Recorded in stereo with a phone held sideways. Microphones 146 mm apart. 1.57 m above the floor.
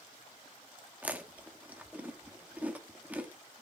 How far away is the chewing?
About 1.5 m.